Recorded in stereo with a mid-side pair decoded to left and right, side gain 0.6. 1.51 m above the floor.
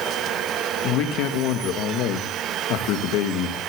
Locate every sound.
0.8 s a man speaking: 70° left, 2 m